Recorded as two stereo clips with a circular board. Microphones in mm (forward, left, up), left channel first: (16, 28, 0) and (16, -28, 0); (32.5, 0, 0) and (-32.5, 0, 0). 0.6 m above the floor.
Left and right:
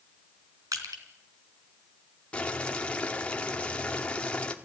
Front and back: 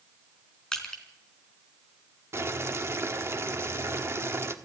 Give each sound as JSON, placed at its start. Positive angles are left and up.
{"t": 0.7, "sound": "crushing", "azimuth_deg": -80, "distance_m": 3.5}
{"t": 2.3, "sound": "boiling", "azimuth_deg": 150, "distance_m": 1.5}